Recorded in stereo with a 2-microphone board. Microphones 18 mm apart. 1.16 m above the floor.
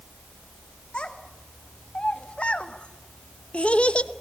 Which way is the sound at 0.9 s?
60° left (ahead or behind).